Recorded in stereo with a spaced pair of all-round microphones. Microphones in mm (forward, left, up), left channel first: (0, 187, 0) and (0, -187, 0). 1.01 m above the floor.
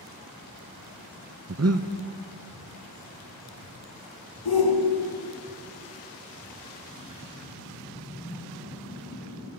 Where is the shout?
70° left (ahead or behind), 1.0 m.